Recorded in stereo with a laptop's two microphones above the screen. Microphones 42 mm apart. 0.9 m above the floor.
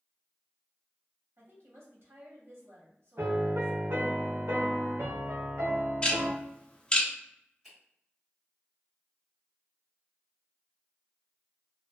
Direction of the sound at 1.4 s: 75° right (ahead or behind).